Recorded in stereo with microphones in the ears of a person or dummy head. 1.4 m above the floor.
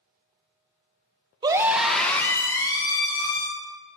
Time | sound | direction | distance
1.4 | a scream | 20° right (ahead or behind) | 0.8 m